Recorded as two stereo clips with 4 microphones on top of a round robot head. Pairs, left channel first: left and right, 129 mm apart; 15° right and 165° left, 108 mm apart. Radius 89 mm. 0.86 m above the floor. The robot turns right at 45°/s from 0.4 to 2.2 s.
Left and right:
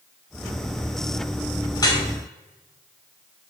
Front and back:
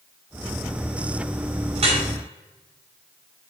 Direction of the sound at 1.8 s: 145° left.